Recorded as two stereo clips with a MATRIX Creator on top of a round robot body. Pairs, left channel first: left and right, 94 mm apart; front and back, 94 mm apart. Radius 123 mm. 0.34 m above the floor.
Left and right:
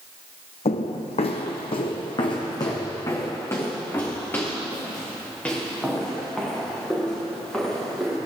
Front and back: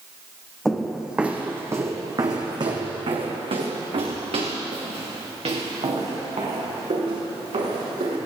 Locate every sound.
0.7 s footsteps: 85° left, 1.3 m; by 8.2 s 175° left, 5 m